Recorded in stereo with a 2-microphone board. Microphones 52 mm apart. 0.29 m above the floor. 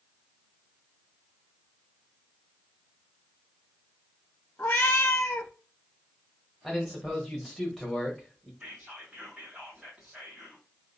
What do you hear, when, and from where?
4.6 s a cat meowing: 40° left (ahead or behind), 0.6 m
6.6 s a man speaking: centre (ahead or behind), 1.1 m
8.6 s whispering: 25° right (ahead or behind), 1.5 m